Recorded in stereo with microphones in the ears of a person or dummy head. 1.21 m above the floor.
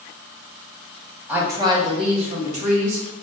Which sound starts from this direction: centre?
A woman speaking, at 1.3 s.